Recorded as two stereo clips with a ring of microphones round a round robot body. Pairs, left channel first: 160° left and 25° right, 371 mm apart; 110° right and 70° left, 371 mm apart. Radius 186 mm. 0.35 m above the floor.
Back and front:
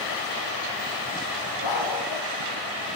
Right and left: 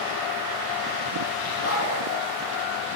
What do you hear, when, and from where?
1.6 s a dog barking: 170° right, 6 m